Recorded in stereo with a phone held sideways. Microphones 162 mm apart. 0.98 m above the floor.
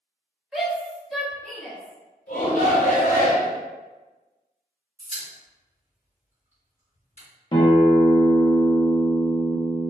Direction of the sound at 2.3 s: 55° left (ahead or behind).